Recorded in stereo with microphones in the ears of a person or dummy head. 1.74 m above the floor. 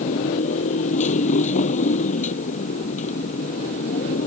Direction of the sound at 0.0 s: 45° left (ahead or behind).